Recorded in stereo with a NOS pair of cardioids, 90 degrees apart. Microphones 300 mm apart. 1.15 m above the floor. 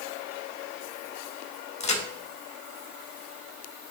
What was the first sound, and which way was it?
A crack, 20° left.